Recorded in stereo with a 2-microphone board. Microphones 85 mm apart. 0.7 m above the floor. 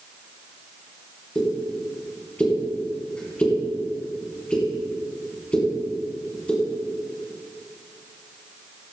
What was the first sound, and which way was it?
A pop, 15° left (ahead or behind).